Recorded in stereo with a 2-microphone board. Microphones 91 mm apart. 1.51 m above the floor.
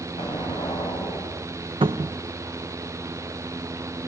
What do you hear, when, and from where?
0.2 s an explosion: 70° left (ahead or behind), 10 m
1.8 s a cupboard door: 70° right (ahead or behind), 1.0 m